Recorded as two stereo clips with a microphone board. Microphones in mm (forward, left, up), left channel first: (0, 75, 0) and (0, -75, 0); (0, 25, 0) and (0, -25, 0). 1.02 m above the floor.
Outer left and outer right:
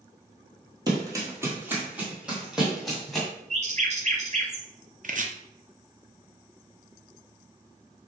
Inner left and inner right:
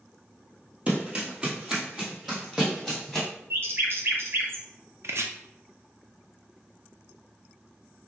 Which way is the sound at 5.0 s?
60° right (ahead or behind).